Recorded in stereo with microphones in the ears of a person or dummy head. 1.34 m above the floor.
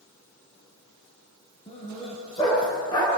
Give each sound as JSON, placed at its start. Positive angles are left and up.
{"t": 1.7, "sound": "a dog barking", "side_deg": 35, "distance_m": 6.5}